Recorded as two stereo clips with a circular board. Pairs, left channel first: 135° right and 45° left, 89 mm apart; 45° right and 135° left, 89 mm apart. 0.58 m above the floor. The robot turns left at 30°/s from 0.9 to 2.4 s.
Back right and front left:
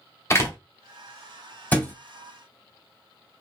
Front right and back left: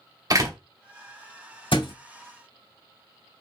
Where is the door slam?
175° left, 0.8 m.